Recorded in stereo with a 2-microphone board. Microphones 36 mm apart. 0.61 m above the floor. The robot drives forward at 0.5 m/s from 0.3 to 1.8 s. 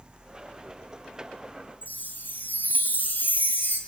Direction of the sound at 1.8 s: 50° left (ahead or behind).